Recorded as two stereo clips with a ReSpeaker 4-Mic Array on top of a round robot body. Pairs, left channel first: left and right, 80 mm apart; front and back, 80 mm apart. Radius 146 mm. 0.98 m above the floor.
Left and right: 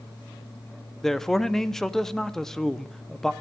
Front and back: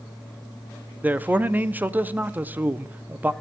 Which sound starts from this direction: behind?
A man speaking, at 1.0 s.